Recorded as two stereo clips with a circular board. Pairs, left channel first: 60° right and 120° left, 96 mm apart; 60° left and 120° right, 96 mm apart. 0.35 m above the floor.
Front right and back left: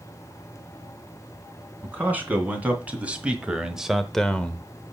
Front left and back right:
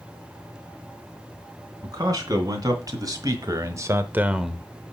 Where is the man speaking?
170° right, 3 m; by 4.7 s 15° right, 0.9 m.